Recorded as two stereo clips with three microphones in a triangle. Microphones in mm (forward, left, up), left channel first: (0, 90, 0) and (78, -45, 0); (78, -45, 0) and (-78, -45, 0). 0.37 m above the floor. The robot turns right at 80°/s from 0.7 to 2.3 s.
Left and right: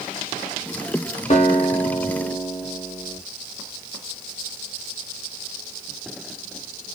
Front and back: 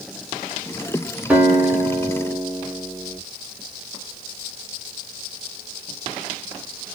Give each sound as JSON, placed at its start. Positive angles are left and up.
{"t": 1.3, "sound": "a guitar", "azimuth_deg": 105, "distance_m": 0.9}